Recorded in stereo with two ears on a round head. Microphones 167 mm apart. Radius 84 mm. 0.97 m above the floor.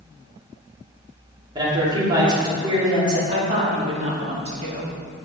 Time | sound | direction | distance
1.6 | a man speaking | 25° right (ahead or behind) | 2 m
3.3 | a woman speaking | 35° right (ahead or behind) | 2 m